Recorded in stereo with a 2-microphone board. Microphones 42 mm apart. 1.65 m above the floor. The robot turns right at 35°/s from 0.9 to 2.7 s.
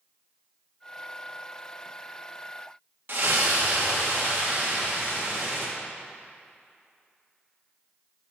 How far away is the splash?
About 1.8 m.